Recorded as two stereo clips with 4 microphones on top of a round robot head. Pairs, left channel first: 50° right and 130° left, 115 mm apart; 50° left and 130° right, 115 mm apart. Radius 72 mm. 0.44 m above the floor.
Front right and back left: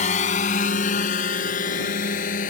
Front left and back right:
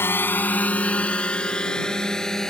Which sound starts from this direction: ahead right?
A drone, at 0.0 s.